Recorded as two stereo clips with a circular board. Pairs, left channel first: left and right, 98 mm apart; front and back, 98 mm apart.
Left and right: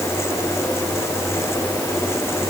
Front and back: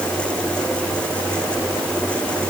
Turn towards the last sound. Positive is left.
No sound to turn to.